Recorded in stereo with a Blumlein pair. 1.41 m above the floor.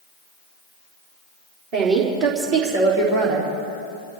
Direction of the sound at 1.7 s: 45° right.